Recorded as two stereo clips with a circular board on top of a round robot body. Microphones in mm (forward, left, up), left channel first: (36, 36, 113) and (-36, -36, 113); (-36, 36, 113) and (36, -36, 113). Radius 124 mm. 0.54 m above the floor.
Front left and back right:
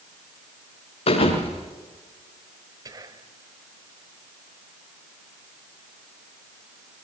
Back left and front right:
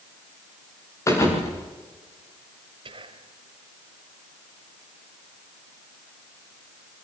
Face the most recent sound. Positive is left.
turn(degrees=-80)